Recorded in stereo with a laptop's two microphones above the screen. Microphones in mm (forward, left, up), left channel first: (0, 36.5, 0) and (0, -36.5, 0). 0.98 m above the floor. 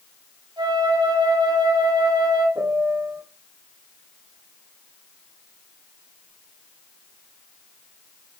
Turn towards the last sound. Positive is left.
turn(degrees=-40)  # may be behind; listen again after turning